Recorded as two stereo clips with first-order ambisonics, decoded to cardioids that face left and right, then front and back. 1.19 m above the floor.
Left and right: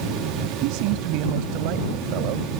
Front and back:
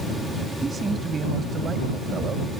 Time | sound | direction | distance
0.6 | a man speaking | 105° right | ?